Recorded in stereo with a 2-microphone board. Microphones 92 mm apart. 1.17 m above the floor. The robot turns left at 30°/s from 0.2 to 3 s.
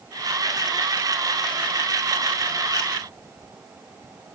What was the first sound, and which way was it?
Only background noise.